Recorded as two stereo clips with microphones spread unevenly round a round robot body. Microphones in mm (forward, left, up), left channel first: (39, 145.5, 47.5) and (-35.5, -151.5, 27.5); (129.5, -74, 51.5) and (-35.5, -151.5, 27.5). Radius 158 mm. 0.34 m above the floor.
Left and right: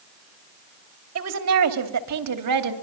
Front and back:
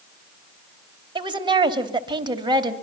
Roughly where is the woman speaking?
Right.